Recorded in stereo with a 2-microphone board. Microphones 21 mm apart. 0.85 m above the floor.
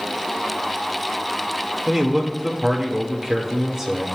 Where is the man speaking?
25° right (ahead or behind), 1.6 m.